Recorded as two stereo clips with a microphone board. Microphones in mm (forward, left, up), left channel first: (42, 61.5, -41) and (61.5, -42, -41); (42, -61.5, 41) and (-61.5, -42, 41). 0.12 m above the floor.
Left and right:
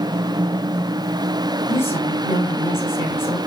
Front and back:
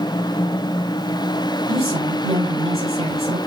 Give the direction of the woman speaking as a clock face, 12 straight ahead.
7 o'clock.